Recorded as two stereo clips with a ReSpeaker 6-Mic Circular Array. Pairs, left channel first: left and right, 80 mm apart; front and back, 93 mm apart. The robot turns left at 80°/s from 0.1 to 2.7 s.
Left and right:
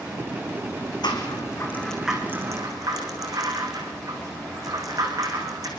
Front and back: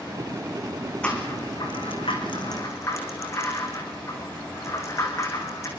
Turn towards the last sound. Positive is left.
turn(degrees=-55)